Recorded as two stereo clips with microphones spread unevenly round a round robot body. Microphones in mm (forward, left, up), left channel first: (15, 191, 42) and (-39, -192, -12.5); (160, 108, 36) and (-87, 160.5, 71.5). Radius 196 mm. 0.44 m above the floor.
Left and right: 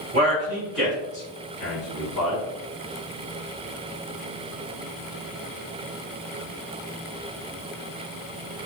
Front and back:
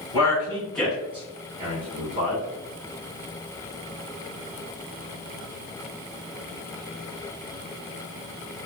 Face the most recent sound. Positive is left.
turn(degrees=115)